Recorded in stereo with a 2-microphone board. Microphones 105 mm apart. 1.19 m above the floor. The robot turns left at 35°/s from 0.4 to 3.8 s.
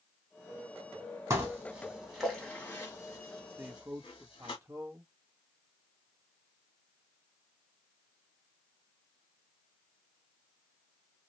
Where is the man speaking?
20° right (ahead or behind), 0.8 m; by 5.1 s 25° right (ahead or behind), 0.8 m.